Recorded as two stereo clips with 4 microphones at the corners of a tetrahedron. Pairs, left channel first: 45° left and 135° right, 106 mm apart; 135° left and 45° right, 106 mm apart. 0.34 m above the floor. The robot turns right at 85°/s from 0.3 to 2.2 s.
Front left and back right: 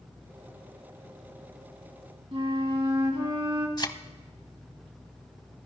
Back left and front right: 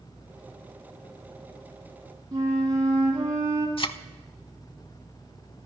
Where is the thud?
95° left, 0.6 m.